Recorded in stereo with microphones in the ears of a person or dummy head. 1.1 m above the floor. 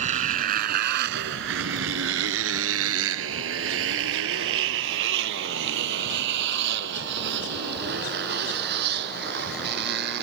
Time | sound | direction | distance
0.0 | a motorcycle | 40° right (ahead or behind) | ?